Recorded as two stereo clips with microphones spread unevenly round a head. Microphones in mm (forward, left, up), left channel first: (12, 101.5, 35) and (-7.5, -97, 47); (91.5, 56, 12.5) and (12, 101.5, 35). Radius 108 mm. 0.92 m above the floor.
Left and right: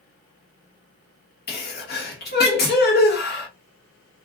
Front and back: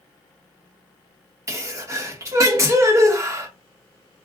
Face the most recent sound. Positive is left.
turn(degrees=90)